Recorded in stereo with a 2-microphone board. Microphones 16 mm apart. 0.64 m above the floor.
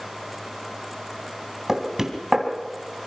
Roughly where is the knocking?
Right.